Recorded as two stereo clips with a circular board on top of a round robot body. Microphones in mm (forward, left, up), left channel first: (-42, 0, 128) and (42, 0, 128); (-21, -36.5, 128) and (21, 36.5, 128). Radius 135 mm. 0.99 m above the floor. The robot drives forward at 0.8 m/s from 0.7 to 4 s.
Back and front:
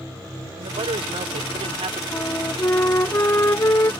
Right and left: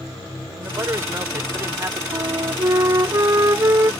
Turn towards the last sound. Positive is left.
turn(degrees=120)